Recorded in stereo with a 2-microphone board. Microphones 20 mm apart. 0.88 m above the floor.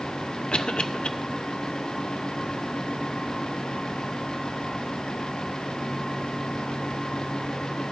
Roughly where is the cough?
Left.